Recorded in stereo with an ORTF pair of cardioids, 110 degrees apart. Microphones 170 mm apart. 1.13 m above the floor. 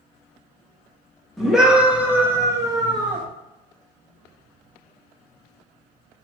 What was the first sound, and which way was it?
A scream, straight ahead.